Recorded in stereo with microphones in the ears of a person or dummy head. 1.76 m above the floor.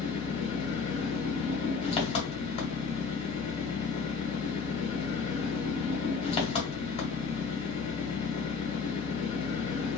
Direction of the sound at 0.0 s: 30° left (ahead or behind).